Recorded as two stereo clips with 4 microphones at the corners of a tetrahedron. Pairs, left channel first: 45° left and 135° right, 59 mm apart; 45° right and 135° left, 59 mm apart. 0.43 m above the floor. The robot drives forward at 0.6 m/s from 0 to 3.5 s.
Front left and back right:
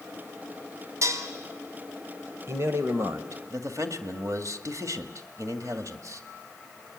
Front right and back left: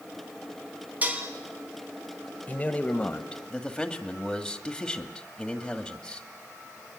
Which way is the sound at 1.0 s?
165° right.